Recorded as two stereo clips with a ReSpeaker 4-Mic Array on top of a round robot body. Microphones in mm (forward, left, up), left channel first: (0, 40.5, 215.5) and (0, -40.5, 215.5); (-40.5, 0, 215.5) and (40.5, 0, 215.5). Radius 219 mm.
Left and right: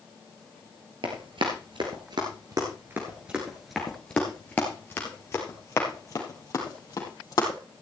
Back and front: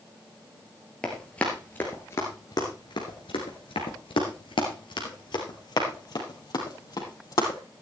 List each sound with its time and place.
1.0 s running footsteps: 100° right, 1.6 m; by 7.6 s 135° left, 3 m